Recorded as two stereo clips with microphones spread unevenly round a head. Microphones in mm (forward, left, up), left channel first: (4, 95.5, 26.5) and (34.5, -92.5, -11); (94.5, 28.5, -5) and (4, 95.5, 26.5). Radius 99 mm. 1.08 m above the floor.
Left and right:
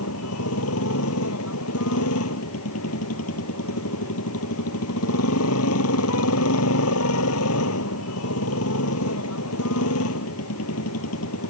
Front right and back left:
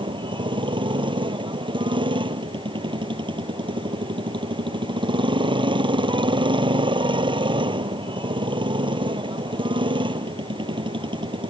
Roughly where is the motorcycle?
Left.